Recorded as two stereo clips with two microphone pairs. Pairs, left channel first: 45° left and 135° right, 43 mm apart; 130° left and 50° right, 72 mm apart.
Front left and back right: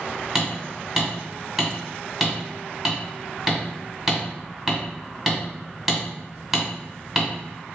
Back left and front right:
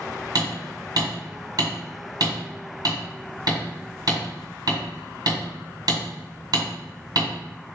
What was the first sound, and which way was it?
Hammering, 50° right.